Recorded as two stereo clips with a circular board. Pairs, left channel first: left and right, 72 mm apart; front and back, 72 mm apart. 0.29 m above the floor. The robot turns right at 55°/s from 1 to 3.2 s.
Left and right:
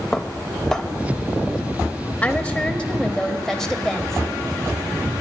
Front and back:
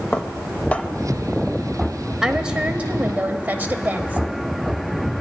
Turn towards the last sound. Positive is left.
turn(degrees=165)